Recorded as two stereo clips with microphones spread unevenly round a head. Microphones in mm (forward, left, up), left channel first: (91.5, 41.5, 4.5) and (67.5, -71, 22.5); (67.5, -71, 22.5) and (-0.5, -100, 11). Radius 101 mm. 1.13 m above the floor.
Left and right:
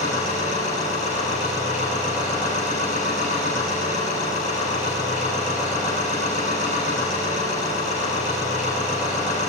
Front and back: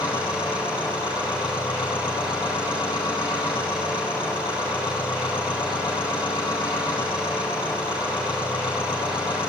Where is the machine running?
95° left, 10 m.